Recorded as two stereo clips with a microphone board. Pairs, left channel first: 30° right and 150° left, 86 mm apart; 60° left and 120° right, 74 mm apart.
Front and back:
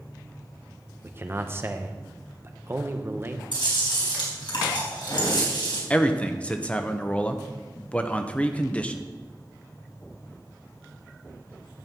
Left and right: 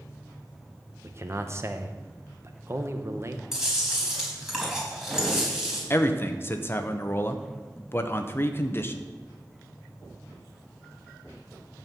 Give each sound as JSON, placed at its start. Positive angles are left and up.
{"t": 1.0, "sound": "a man speaking", "azimuth_deg": -160, "distance_m": 0.9}
{"t": 3.5, "sound": "chewing", "azimuth_deg": -35, "distance_m": 3.5}
{"t": 5.9, "sound": "a man speaking", "azimuth_deg": 35, "distance_m": 0.8}